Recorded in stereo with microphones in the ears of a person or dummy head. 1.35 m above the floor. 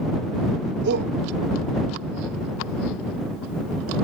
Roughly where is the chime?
I don't hear a chime.